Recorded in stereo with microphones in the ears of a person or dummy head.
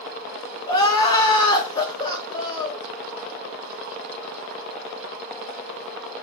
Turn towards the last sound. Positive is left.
turn(degrees=30)  # may be behind; listen again after turning